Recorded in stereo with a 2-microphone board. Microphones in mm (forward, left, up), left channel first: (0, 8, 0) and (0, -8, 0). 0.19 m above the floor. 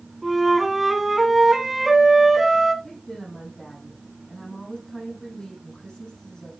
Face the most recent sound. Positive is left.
turn(degrees=40)  # may be behind; listen again after turning